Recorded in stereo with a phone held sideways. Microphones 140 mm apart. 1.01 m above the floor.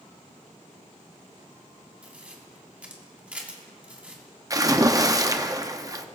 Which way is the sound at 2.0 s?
10° right (ahead or behind).